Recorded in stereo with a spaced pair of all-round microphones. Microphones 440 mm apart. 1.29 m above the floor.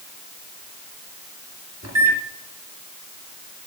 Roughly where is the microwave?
Right.